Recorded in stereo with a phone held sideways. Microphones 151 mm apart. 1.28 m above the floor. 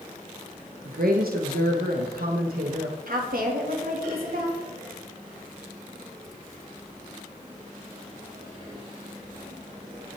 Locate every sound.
0.8 s a woman speaking: 85° right, 1.0 m
3.1 s a woman speaking: 75° right (ahead or behind), 2.5 m